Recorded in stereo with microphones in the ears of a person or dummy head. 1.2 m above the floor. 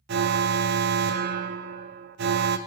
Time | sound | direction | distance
0.1 | an alarm | 55° right (ahead or behind) | 0.5 m